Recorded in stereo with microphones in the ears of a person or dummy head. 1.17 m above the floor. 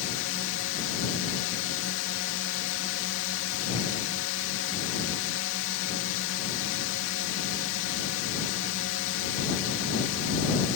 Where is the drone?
65° left (ahead or behind).